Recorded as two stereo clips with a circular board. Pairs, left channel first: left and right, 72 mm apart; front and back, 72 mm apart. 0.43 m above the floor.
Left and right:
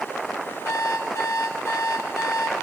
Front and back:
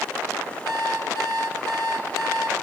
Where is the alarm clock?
45° left, 5.5 m.